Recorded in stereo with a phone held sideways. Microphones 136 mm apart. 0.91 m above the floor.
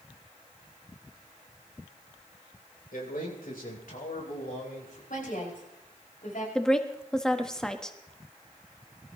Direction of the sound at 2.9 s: 85° left.